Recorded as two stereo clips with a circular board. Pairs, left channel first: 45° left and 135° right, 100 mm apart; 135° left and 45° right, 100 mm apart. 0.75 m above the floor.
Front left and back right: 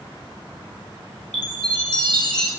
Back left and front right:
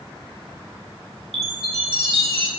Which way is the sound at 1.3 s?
35° right.